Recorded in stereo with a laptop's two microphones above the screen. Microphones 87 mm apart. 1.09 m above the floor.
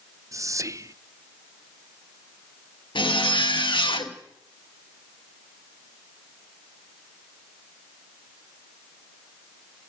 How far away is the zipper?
About 1.9 m.